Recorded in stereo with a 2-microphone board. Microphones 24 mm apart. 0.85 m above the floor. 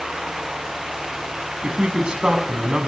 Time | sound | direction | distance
1.6 | a man speaking | 40° right (ahead or behind) | 6.5 m